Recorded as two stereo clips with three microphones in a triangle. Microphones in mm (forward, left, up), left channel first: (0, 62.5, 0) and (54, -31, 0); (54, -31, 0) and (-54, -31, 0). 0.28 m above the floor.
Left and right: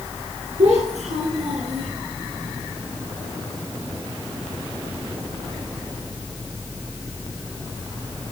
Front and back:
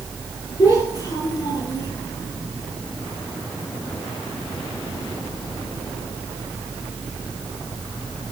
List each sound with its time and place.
0.6 s a child speaking: 60° right, 7 m; by 1.9 s 65° right, 6 m